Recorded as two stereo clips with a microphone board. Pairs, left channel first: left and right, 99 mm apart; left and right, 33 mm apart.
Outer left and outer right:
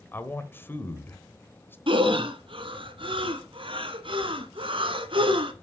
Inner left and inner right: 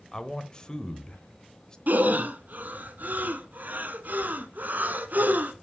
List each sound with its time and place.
0.1 s a man speaking: 20° left (ahead or behind), 0.9 m
1.9 s breathing: 60° right (ahead or behind), 0.9 m